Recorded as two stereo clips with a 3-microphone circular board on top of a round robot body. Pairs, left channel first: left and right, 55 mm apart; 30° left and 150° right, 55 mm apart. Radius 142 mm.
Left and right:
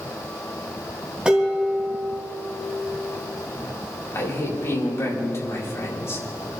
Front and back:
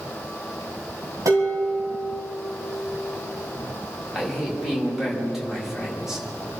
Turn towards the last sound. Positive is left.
turn(degrees=125)